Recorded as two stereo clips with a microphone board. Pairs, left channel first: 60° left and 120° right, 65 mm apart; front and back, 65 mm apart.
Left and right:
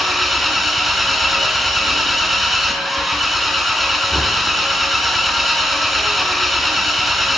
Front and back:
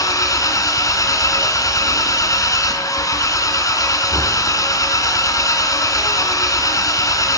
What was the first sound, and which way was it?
An engine running, 30° right.